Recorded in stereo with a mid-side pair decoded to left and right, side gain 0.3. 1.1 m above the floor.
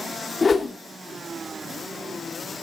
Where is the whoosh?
45° left, 2.5 m.